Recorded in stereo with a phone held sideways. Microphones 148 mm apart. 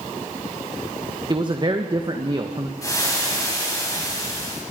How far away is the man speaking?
About 1.5 m.